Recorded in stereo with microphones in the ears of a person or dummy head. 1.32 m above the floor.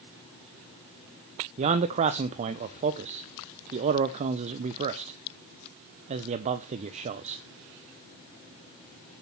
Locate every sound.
1.6 s a man speaking: 40° right (ahead or behind), 0.5 m